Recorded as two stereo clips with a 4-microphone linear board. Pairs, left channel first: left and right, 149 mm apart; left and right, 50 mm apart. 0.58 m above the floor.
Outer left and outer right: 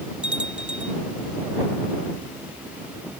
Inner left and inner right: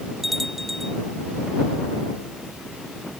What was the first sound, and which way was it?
A bell, 5° right (ahead or behind).